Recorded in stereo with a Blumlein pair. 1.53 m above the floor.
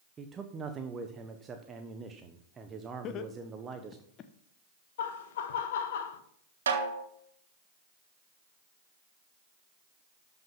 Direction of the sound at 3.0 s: 30° left.